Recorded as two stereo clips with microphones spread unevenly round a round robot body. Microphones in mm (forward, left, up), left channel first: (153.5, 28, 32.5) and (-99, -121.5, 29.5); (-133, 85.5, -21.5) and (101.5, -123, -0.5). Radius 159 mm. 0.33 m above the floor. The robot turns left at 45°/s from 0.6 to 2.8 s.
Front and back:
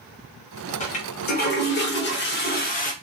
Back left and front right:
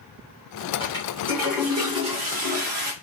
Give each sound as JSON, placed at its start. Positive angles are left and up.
{"t": 0.8, "sound": "a toilet flushing", "azimuth_deg": 80, "distance_m": 0.8}